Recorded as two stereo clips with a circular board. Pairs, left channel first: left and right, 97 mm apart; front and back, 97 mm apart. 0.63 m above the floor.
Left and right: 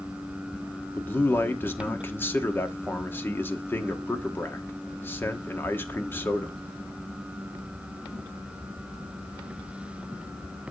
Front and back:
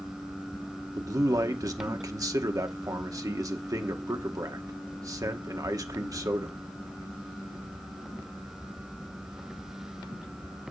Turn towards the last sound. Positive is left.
turn(degrees=150)